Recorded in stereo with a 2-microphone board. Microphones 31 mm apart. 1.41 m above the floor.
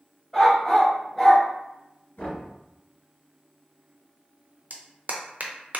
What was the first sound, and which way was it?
A dog barking, 15° left (ahead or behind).